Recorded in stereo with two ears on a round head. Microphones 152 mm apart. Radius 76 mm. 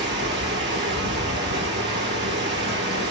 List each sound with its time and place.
0.0 s running water: 75° right (ahead or behind), 2 m